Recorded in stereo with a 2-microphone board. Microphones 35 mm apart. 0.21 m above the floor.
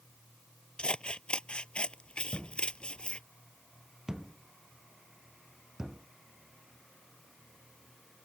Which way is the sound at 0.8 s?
30° left (ahead or behind).